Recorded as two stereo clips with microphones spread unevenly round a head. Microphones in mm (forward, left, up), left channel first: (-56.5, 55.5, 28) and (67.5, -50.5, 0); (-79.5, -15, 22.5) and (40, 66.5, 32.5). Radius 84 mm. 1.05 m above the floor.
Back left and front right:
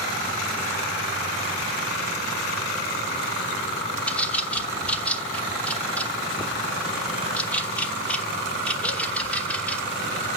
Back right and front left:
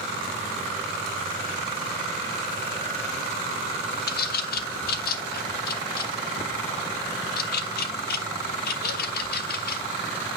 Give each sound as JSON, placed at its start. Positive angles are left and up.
{"t": 4.1, "sound": "a bird", "azimuth_deg": -135, "distance_m": 1.0}